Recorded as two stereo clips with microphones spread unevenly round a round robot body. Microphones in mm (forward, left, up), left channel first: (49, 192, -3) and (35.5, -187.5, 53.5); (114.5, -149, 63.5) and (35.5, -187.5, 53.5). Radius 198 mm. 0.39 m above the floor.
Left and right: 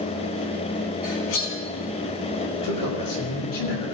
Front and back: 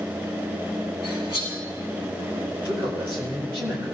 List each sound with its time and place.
1.0 s cutlery clinking: 85° left, 5 m
2.5 s a man speaking: 125° left, 7.5 m